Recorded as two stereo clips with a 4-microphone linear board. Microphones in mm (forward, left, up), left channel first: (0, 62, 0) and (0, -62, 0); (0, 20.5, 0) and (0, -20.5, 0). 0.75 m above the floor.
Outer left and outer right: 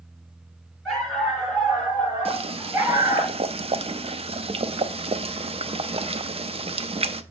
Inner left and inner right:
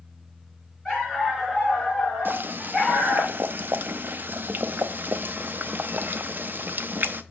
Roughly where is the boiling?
Right.